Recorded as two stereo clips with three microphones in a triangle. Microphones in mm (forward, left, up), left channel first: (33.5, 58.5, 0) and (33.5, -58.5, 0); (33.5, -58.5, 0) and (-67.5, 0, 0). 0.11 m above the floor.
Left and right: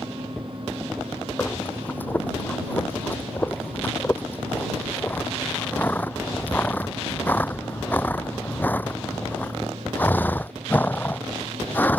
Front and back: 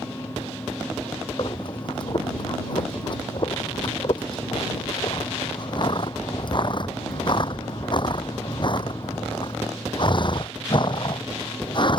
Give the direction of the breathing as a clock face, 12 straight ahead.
11 o'clock.